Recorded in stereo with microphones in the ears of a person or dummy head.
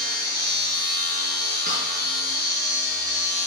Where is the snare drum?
40° right (ahead or behind), 6 m.